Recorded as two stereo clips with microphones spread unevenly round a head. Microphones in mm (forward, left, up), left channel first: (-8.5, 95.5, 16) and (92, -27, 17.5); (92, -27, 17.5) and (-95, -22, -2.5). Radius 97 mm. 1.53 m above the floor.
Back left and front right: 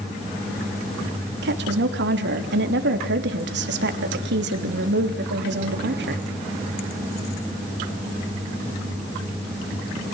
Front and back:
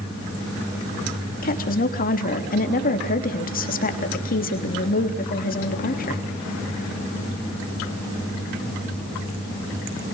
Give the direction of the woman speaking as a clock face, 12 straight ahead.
2 o'clock.